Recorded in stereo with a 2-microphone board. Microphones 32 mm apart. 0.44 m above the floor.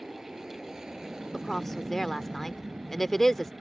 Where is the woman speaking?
10° left (ahead or behind).